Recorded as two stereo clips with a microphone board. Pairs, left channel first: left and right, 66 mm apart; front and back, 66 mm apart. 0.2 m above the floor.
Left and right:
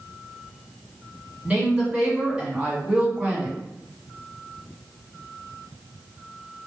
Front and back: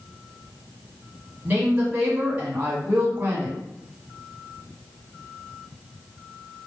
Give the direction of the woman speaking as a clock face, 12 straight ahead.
5 o'clock.